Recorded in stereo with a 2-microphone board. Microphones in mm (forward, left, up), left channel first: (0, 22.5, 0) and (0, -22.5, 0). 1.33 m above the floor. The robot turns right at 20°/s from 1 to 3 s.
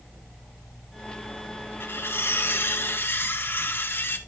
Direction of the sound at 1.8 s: 55° left (ahead or behind).